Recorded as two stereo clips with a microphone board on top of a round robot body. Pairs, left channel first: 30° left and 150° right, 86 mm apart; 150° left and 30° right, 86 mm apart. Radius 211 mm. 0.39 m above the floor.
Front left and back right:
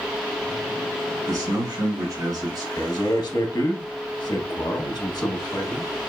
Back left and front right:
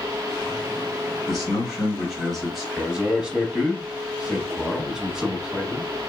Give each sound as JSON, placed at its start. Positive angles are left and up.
{"t": 1.3, "sound": "a man speaking", "azimuth_deg": -115, "distance_m": 2.0}
{"t": 2.8, "sound": "a man speaking", "azimuth_deg": 55, "distance_m": 1.0}